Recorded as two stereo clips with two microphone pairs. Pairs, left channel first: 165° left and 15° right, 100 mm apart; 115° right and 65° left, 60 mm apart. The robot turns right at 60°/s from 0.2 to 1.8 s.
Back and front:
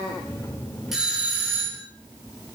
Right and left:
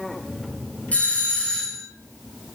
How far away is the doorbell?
About 1.4 m.